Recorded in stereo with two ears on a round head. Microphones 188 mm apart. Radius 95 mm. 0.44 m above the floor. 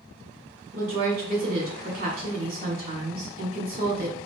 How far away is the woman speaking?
About 1.7 m.